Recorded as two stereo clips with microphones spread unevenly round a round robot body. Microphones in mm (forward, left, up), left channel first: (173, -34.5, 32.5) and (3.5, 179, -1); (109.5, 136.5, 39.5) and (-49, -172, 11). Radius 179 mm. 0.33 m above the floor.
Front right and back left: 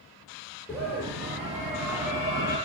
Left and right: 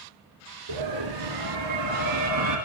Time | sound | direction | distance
0.7 | a scream | 135° right | 5.5 m